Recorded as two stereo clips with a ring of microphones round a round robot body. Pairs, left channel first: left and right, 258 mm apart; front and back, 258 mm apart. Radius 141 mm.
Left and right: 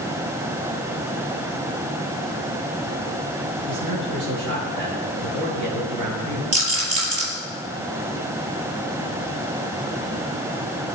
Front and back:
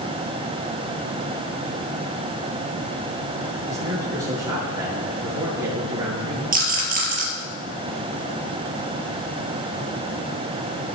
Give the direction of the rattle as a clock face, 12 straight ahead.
4 o'clock.